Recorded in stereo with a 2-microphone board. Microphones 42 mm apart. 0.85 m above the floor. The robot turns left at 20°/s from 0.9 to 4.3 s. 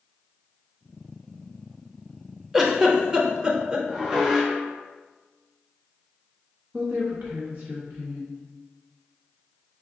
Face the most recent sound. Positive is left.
turn(degrees=-40)  # may be behind; listen again after turning